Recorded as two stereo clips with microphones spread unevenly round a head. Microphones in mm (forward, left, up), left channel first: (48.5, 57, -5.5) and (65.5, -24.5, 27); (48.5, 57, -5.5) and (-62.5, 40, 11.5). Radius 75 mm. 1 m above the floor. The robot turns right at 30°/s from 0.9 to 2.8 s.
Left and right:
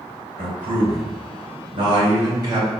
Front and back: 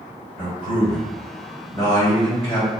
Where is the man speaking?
75° right, 1.7 m; by 2.7 s 20° right, 1.7 m.